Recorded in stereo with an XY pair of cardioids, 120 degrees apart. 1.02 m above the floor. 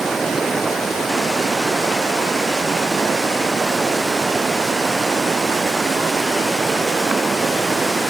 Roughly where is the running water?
Ahead right.